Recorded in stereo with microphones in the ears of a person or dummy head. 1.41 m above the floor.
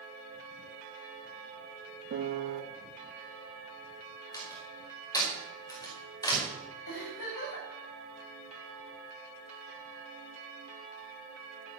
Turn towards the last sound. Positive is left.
turn(degrees=60)  # may be behind; listen again after turning